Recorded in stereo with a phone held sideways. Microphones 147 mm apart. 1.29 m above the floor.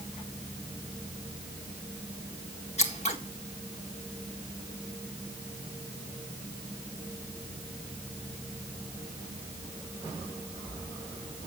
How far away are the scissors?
About 1.8 m.